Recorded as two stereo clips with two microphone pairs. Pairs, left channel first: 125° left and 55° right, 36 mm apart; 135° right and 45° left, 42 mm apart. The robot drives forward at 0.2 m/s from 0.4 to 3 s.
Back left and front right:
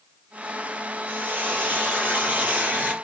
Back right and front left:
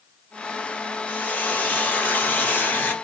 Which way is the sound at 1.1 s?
85° right.